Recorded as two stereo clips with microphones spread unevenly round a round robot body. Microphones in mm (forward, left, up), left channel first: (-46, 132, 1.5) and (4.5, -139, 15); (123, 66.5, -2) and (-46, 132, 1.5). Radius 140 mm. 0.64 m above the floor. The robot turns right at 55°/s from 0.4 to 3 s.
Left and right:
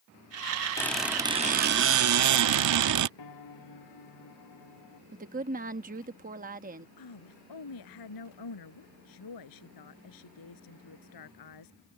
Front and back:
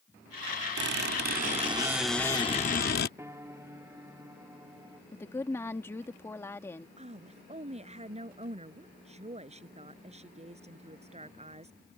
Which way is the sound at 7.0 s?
105° left.